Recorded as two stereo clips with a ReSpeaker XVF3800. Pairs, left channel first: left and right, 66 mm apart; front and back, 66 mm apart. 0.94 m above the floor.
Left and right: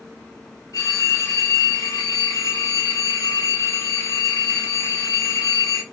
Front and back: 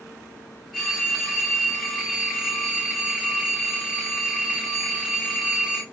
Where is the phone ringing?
100° left, 4 m.